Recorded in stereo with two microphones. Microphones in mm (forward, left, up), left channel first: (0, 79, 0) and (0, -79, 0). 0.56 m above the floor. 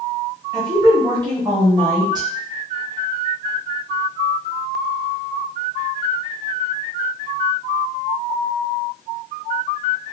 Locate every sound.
0.5 s a woman speaking: 25° right (ahead or behind), 0.9 m